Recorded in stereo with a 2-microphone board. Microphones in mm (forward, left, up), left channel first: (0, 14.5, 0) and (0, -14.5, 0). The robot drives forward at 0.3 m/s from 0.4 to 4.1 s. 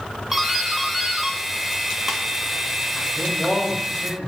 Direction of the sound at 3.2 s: 35° right (ahead or behind).